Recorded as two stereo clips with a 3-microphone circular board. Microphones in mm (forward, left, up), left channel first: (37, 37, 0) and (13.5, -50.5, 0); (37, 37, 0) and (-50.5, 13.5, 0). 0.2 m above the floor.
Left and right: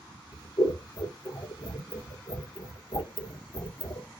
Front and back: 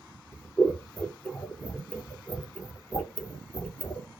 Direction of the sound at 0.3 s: 90° left.